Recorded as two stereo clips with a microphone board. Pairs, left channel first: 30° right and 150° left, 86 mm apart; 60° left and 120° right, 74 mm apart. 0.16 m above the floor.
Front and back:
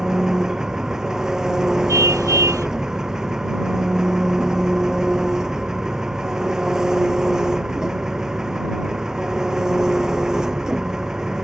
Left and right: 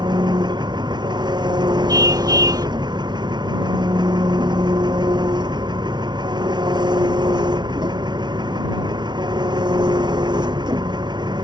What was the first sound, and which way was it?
An engine running, 125° right.